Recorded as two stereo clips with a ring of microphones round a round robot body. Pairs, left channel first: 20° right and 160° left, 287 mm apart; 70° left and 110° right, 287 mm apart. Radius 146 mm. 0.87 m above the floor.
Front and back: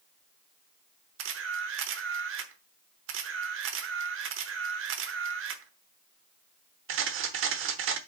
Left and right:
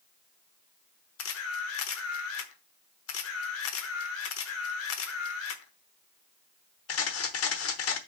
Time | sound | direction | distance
1.2 | a camera shutter | 110° left | 0.9 m